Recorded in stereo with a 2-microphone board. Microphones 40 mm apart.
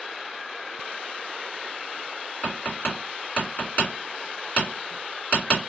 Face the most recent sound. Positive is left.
turn(degrees=40)  # may be behind; listen again after turning